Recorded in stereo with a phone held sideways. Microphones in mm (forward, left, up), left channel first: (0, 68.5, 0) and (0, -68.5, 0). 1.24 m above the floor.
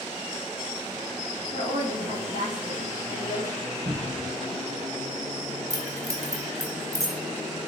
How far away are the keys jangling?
About 0.7 m.